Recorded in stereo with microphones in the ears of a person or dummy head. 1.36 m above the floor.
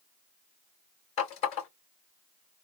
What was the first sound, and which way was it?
A running tap, 35° left (ahead or behind).